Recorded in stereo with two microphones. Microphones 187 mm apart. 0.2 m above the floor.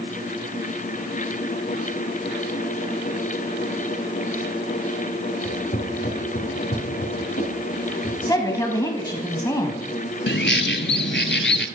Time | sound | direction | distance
5.4 | footsteps | 50° left (ahead or behind) | 2.5 m
8.2 | a woman speaking | 20° left (ahead or behind) | 1.0 m
10.3 | a bird | 80° left | 0.7 m